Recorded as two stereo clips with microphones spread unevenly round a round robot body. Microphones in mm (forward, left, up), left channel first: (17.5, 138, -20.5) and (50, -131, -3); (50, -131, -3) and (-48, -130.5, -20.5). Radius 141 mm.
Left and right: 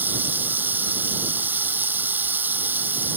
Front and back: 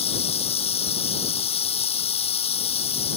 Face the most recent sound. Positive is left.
turn(degrees=0)